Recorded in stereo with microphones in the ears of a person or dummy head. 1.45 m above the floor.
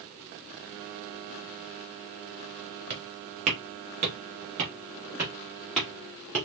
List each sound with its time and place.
2.9 s footsteps: 35° right (ahead or behind), 1.8 m; by 6.5 s 5° left (ahead or behind), 1.9 m